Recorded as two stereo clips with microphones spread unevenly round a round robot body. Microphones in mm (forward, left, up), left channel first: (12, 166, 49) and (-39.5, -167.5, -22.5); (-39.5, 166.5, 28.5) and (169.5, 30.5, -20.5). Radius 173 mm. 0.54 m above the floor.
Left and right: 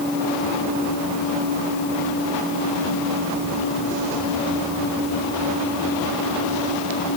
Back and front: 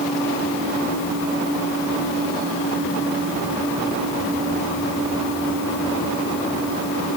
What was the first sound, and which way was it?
Only background noise.